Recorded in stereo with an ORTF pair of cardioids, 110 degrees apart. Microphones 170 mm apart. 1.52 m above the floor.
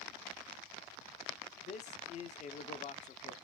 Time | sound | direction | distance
1.6 | a man speaking | 45° left | 0.7 m